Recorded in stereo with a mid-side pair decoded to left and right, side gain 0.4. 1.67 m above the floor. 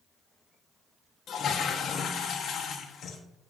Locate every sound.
1.3 s a toilet flushing: 65° left, 1.3 m